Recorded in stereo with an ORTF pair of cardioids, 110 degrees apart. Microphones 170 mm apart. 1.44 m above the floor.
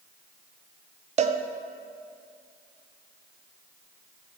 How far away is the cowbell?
About 0.6 m.